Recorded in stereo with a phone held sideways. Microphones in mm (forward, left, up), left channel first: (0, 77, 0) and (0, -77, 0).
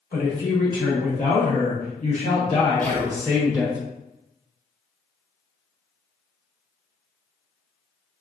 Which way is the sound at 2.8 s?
10° left (ahead or behind).